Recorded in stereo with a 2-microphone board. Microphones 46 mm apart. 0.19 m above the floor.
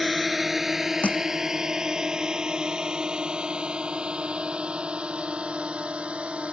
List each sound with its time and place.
0.0 s a drone: centre (ahead or behind); by 6.5 s 25° right (ahead or behind)
1.0 s crushing: 35° left (ahead or behind)